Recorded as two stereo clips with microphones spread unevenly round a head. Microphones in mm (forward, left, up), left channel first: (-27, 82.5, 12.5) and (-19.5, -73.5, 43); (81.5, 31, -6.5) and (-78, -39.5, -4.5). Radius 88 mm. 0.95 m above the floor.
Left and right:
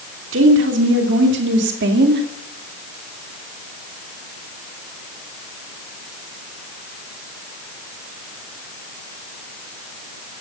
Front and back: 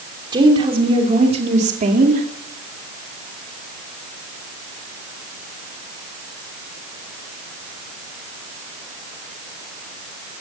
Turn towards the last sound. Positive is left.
turn(degrees=-110)